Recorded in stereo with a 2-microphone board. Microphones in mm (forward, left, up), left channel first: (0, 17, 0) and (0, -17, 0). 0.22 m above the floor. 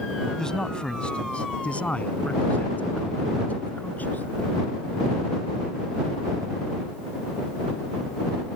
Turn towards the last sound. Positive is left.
turn(degrees=70)  # may be behind; listen again after turning